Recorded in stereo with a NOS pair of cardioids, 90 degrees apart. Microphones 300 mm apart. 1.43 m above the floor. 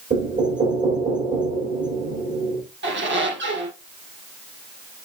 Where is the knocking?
30° right, 6 m.